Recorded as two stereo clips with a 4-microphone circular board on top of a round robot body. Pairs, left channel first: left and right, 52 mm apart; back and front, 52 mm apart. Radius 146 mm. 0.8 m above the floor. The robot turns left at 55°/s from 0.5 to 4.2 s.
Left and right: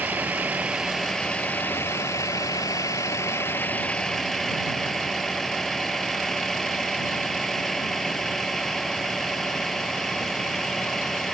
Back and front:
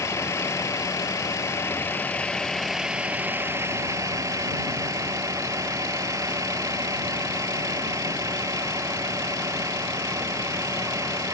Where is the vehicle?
155° right; by 11.3 s 5° left.